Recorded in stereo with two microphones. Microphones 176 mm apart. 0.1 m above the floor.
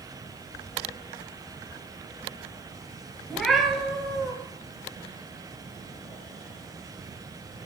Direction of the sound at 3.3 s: Centre (ahead or behind).